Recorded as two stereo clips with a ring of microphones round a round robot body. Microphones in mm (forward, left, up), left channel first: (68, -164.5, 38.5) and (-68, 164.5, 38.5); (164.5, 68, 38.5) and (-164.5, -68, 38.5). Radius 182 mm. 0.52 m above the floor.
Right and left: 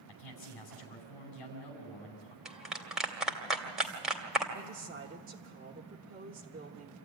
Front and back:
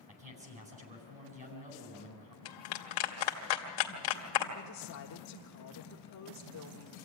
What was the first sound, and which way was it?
A man speaking, 85° right.